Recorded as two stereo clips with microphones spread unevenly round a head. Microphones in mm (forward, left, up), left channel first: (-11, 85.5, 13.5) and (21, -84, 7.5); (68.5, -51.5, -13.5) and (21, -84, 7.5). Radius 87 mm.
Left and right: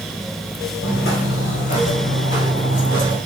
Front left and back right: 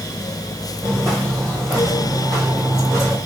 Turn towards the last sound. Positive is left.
turn(degrees=145)